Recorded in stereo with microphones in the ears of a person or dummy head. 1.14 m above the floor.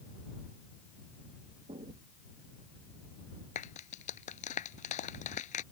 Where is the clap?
45° left (ahead or behind).